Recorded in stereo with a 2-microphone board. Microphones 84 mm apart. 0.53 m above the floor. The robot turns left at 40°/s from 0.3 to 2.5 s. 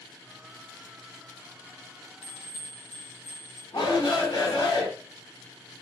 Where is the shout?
65° left (ahead or behind), 2.5 m.